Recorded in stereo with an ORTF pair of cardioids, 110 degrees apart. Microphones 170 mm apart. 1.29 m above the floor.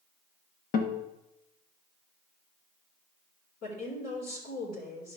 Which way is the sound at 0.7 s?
60° left.